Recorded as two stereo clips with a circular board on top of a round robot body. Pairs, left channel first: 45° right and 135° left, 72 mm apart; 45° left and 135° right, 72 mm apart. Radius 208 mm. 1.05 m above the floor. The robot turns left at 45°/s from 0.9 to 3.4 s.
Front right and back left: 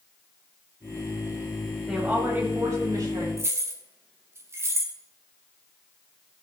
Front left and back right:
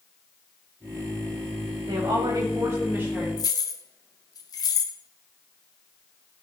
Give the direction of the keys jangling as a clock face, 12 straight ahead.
9 o'clock.